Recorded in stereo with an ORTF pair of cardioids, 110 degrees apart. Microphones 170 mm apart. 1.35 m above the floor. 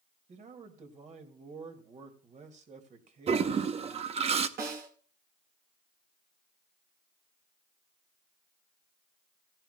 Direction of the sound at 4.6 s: 65° right.